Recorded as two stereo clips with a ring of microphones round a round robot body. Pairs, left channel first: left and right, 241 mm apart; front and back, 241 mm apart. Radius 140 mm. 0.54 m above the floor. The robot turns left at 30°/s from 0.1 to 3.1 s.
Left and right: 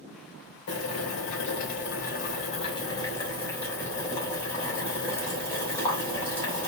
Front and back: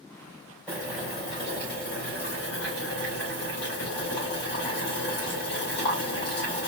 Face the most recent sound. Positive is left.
turn(degrees=10)